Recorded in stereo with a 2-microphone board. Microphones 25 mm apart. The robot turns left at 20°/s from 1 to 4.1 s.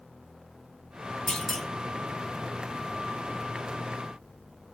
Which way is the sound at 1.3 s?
20° left (ahead or behind).